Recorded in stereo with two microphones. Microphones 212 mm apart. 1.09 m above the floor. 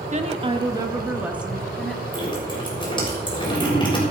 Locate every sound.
0.1 s a woman speaking: 35° right (ahead or behind), 1.5 m; by 2.0 s 5° left (ahead or behind), 2.5 m
2.1 s dripping: 20° left (ahead or behind), 6 m